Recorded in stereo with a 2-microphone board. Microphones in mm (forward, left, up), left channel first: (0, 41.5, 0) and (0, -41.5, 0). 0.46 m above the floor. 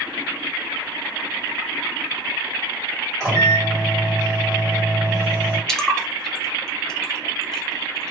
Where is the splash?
10° left (ahead or behind), 0.6 m.